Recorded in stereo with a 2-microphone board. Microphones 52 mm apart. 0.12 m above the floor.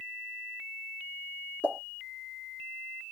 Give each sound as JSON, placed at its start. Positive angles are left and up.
{"t": 1.6, "sound": "a pop", "side_deg": 30, "distance_m": 1.8}